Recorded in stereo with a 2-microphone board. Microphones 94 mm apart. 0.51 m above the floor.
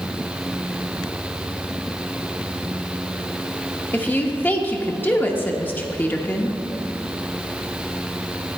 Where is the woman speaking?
20° left (ahead or behind), 0.8 m.